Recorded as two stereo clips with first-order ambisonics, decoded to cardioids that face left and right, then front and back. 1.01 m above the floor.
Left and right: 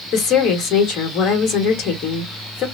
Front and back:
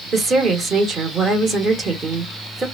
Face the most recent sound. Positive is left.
turn(degrees=115)